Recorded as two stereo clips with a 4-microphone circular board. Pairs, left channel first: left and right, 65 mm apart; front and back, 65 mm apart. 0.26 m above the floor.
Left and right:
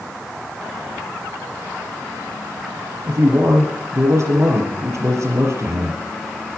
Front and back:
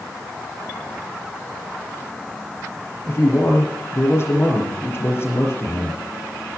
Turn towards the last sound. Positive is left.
turn(degrees=-50)